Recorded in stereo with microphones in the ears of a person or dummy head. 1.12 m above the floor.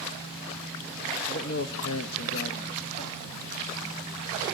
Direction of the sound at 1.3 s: 55° left (ahead or behind).